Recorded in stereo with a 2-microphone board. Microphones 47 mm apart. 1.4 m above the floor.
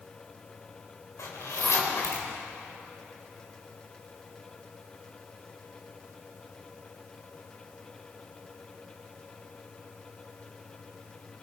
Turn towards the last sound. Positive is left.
turn(degrees=75)  # may be behind; listen again after turning